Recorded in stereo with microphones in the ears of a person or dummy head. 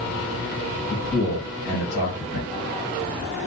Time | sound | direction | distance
0.9 | a man speaking | 50° left (ahead or behind) | 1.4 m